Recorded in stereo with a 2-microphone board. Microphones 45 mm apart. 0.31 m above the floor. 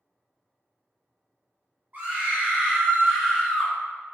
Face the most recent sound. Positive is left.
turn(degrees=0)  # may be behind; listen again after turning